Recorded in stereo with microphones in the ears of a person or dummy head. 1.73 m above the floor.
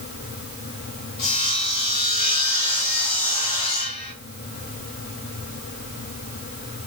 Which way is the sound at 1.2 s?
35° left (ahead or behind).